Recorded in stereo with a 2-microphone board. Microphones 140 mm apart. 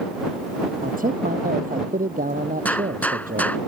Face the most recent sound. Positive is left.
turn(degrees=10)  # may be behind; listen again after turning